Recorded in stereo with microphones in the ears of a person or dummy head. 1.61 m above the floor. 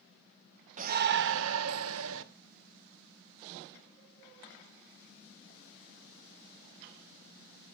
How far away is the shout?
About 0.9 m.